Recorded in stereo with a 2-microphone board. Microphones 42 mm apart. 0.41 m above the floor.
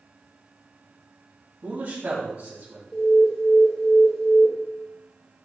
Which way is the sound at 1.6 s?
45° right (ahead or behind).